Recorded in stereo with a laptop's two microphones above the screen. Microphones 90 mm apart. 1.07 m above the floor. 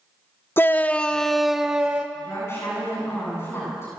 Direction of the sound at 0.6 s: 25° left (ahead or behind).